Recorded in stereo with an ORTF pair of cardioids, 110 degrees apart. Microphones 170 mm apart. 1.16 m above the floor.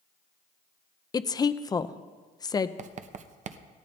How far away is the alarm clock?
I don't hear an alarm clock.